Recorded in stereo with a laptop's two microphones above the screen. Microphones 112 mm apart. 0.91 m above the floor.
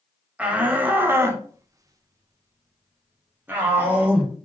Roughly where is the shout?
Centre.